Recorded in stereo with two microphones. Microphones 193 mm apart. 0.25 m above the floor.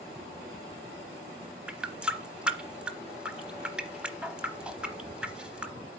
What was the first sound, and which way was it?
A running tap, 5° right (ahead or behind).